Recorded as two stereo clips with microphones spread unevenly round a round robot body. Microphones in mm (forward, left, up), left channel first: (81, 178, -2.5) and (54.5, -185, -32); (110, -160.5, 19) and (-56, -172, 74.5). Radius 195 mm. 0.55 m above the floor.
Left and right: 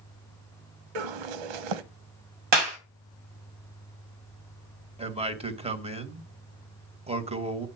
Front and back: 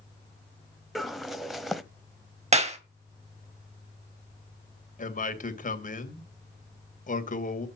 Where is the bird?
90° right, 1.2 m.